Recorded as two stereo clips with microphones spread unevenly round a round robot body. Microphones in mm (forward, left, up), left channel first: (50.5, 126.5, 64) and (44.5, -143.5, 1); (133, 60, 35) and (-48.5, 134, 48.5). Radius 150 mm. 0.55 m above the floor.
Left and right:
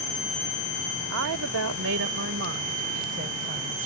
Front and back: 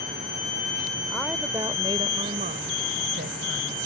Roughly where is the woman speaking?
Right.